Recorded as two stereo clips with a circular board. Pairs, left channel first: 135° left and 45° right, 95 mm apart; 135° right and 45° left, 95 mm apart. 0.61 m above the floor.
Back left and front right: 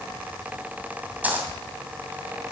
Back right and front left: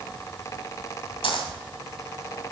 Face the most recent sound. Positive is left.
turn(degrees=-115)